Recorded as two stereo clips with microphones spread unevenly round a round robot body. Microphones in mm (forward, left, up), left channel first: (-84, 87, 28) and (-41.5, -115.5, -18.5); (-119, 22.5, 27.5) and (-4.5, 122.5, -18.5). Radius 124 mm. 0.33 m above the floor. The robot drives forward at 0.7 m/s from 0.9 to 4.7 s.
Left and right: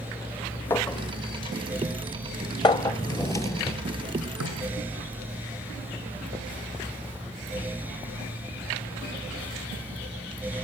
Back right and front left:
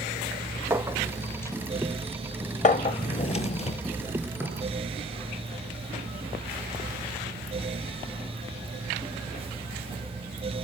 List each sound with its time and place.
0.7 s a clink: 10° left, 0.6 m; by 3.0 s 175° left, 1.2 m
2.9 s a drawer: 175° left, 1.6 m
4.4 s knocking: 50° right, 3.5 m; by 4.6 s 55° right, 3 m